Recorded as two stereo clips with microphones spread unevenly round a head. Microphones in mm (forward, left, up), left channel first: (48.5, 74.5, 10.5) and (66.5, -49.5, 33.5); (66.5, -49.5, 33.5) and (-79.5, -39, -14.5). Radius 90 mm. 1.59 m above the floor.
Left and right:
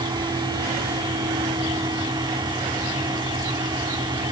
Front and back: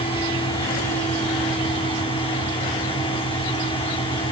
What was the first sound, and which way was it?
A fan, 40° right.